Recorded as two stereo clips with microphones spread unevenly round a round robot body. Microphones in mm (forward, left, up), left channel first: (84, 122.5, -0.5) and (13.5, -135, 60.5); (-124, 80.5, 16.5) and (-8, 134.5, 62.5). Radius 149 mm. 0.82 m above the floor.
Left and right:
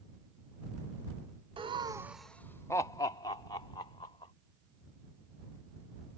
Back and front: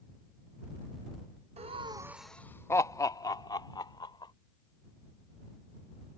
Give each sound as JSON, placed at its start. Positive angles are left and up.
{"t": 1.6, "sound": "laughter", "azimuth_deg": -25}